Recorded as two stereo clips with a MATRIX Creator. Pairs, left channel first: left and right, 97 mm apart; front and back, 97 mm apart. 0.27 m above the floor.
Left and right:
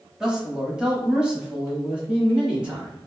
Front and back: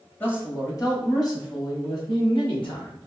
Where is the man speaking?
15° right, 1.0 m; by 3.0 s 10° right, 2.5 m.